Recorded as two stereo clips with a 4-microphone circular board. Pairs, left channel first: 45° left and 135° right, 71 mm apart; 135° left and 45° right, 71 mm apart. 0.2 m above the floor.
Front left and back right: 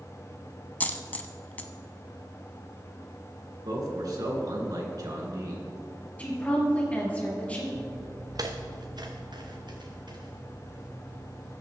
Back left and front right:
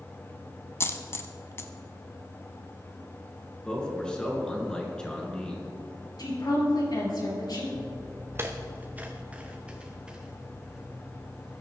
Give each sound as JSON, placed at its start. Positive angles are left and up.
{"t": 0.8, "sound": "a dropped coin", "azimuth_deg": 100, "distance_m": 0.8}
{"t": 3.6, "sound": "a man speaking", "azimuth_deg": -150, "distance_m": 3.0}
{"t": 6.2, "sound": "a woman speaking", "azimuth_deg": 115, "distance_m": 3.5}
{"t": 7.7, "sound": "footsteps", "azimuth_deg": -85, "distance_m": 1.2}